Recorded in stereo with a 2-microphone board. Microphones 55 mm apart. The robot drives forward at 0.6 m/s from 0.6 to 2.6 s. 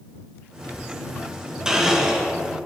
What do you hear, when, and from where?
1.6 s a blender: 15° right (ahead or behind), 1.9 m; by 2.3 s 10° right (ahead or behind), 2 m